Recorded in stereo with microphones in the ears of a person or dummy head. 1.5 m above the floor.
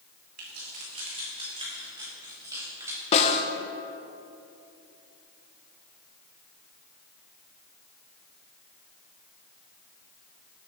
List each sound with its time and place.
0.4 s keys jangling: 55° right (ahead or behind), 2.5 m; by 3.0 s 20° right (ahead or behind), 4.5 m
3.1 s a snare drum: 40° left (ahead or behind), 1.0 m